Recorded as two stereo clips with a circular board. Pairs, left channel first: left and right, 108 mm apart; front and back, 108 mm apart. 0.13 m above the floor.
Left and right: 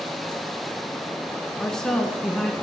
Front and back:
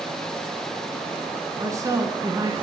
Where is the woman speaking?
170° left, 1.2 m.